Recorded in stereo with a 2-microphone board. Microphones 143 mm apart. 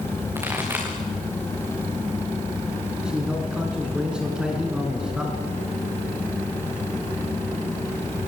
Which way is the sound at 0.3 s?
15° right (ahead or behind).